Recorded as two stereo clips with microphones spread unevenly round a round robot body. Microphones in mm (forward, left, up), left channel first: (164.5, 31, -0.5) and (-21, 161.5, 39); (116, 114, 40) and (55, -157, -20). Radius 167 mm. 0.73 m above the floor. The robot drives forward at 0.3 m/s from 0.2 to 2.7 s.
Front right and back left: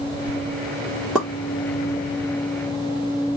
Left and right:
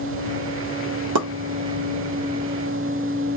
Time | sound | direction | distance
1.1 | a pop | 125° right | 1.4 m